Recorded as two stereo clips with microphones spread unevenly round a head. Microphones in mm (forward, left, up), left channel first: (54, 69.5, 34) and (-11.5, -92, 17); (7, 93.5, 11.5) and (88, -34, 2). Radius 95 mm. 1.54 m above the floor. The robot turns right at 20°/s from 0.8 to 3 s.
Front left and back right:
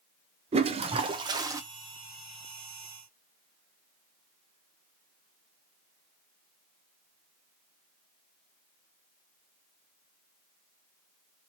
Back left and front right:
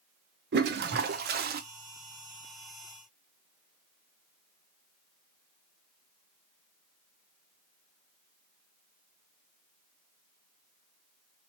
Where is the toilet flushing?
55° right, 0.6 m; by 1.6 s 40° right, 0.6 m.